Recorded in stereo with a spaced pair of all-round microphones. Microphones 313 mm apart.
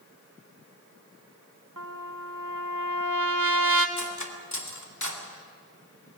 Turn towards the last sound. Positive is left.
turn(degrees=65)  # may be behind; listen again after turning